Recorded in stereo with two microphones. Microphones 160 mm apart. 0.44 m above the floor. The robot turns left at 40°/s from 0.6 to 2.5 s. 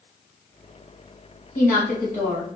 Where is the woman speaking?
95° left, 2 m; by 2.5 s 60° left, 2 m.